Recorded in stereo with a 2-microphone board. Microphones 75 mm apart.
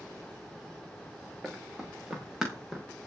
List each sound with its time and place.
1.4 s running footsteps: centre (ahead or behind), 7 m; by 2.9 s 5° right (ahead or behind), 6 m